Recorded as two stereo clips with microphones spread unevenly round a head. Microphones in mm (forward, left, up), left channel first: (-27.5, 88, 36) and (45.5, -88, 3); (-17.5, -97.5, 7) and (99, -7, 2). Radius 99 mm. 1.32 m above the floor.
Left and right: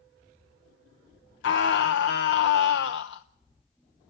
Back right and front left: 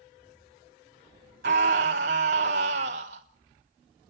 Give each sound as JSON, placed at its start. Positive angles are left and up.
{"t": 1.4, "sound": "a scream", "azimuth_deg": 85, "distance_m": 0.8}